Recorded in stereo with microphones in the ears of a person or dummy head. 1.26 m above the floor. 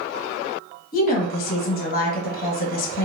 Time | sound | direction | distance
0.9 | a woman speaking | 55° left (ahead or behind) | 1.4 m